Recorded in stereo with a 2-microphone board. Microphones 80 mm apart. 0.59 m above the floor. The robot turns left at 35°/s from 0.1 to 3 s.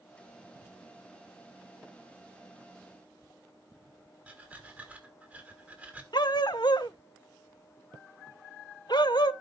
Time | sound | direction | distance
4.3 | breathing | 20° right (ahead or behind) | 1.8 m
6.1 | a dog barking | 65° left (ahead or behind) | 0.6 m